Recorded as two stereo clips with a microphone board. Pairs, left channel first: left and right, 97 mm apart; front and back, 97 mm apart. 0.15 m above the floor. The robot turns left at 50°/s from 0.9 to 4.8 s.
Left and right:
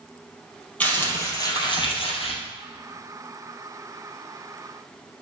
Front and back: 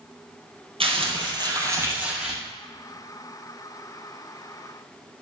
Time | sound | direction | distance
0.8 | crumpling | 165° left | 3 m